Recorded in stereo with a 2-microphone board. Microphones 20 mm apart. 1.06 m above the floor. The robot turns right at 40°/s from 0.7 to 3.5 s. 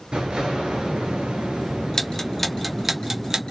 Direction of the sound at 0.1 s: 115° right.